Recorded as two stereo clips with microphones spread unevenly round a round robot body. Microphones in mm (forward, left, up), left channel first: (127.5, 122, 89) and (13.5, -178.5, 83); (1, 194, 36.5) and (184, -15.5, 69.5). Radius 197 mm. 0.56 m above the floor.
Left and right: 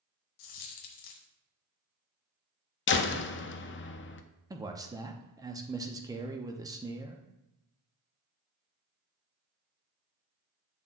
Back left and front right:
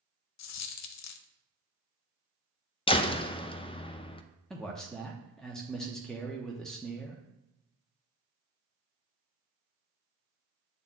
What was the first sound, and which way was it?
A dropped coin, 100° left.